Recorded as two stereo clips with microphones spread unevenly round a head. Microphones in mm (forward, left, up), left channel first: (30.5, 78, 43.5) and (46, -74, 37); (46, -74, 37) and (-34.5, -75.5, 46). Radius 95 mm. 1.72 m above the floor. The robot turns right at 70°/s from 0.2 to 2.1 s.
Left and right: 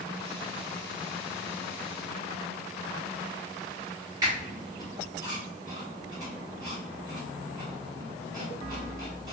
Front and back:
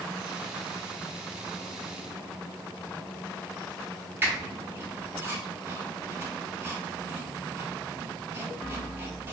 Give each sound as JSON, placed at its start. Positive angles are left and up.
{"t": 4.2, "sound": "a squeak", "azimuth_deg": -150, "distance_m": 0.7}